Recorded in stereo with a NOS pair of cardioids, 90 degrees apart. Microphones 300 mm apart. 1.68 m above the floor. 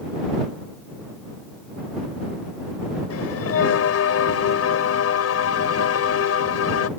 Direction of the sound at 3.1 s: 55° left.